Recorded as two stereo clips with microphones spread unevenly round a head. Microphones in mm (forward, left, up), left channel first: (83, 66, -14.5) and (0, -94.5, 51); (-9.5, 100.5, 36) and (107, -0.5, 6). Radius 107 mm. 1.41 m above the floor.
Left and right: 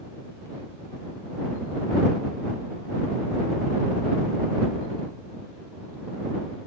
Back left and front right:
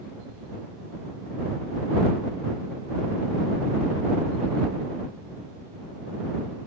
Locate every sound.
Only background noise.